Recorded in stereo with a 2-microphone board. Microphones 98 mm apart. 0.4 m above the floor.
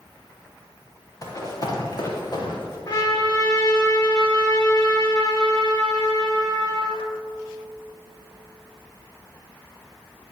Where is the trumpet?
50° left (ahead or behind), 4.5 m.